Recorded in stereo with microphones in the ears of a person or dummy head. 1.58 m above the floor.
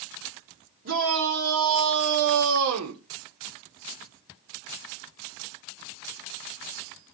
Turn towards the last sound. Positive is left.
turn(degrees=-80)